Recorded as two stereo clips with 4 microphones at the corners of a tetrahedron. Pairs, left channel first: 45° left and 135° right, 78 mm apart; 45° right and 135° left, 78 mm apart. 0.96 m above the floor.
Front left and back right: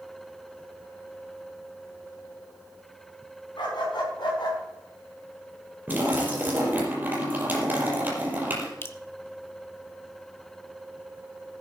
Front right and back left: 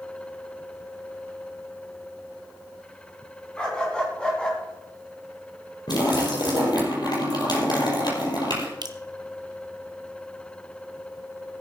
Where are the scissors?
No scissors in this recording.